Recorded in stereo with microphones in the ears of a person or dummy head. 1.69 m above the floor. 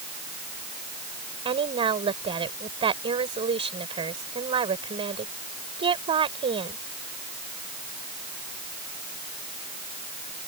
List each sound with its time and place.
1.4 s a woman speaking: 35° right (ahead or behind)